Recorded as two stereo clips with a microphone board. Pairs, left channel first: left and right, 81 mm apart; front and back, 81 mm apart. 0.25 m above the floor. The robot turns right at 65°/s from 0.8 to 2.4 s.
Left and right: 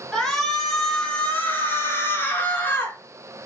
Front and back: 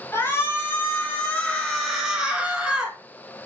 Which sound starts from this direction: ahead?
A shout, at 0.1 s.